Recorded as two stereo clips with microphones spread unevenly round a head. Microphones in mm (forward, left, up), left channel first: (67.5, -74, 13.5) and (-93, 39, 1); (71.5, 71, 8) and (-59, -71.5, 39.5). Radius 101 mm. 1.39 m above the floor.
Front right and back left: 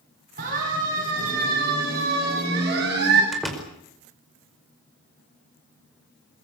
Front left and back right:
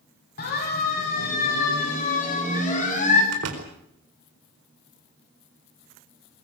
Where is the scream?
I don't hear a scream.